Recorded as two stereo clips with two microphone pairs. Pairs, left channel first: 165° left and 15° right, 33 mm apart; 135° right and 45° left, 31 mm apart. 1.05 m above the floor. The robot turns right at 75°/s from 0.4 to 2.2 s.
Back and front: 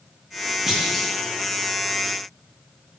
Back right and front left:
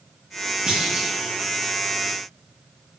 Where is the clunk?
60° left, 0.5 m; by 1.2 s 95° left, 0.5 m.